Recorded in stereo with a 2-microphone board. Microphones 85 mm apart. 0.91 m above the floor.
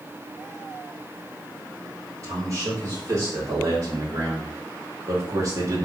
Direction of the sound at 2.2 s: 40° right (ahead or behind).